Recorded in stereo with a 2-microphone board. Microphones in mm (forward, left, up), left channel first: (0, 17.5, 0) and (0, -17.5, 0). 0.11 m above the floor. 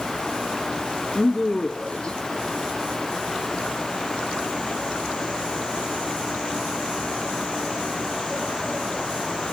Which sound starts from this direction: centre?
A woman speaking, at 1.1 s.